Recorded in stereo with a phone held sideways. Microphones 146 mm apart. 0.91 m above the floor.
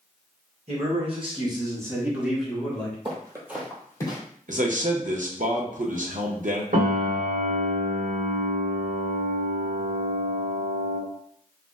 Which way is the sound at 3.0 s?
40° right (ahead or behind).